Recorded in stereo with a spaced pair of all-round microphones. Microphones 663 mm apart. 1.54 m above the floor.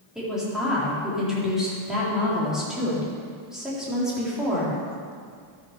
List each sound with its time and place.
0.1 s a woman speaking: centre (ahead or behind), 3.5 m